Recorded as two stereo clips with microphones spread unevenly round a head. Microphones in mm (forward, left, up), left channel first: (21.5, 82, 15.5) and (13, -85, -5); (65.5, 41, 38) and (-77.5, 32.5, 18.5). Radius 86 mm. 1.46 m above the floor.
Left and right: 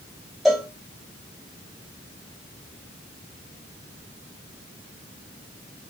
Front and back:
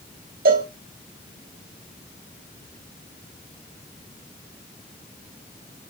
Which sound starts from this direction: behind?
A cowbell, at 0.5 s.